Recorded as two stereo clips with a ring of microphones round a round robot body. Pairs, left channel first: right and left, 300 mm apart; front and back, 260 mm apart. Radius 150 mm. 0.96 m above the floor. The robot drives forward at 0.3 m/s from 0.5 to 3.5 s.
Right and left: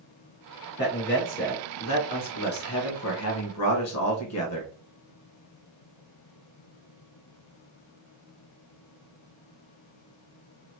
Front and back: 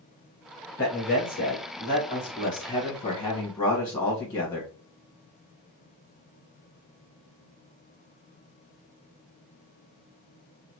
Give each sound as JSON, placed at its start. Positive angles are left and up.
{"t": 0.8, "sound": "a man speaking", "azimuth_deg": -40, "distance_m": 1.6}